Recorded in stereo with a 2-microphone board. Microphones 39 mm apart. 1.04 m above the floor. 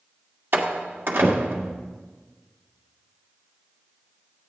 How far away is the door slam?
About 1.5 m.